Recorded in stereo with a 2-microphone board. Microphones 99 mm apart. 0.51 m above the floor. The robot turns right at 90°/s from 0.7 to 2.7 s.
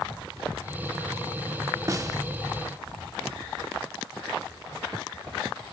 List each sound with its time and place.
1.9 s a snare drum: 35° right (ahead or behind), 0.7 m